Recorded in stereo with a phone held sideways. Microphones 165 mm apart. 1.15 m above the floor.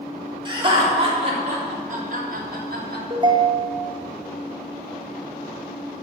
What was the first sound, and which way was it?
Laughter, 30° right (ahead or behind).